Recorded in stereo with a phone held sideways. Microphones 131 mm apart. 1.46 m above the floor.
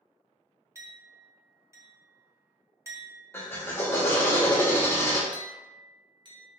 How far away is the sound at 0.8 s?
About 0.5 m.